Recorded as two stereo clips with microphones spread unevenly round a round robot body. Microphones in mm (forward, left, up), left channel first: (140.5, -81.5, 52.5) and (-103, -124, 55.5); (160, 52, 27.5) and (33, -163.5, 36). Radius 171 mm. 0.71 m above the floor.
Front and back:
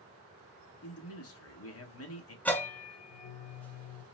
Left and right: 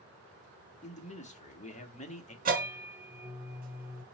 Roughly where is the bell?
Right.